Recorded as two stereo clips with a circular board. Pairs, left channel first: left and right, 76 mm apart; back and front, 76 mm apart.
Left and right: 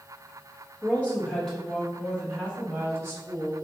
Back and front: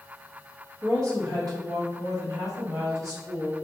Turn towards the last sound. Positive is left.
turn(degrees=-50)